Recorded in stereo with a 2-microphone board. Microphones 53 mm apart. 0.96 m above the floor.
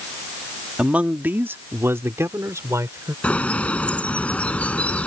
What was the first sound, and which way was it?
A man speaking, 20° right (ahead or behind).